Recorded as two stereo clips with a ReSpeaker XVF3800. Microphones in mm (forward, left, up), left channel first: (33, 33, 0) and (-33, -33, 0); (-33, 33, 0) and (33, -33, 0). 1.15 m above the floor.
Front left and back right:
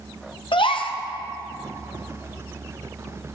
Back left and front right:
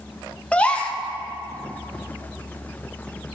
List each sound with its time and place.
0.5 s a gasp: 60° left, 0.7 m